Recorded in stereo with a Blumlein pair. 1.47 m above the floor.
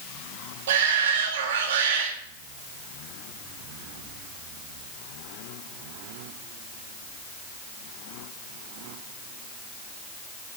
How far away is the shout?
About 4 m.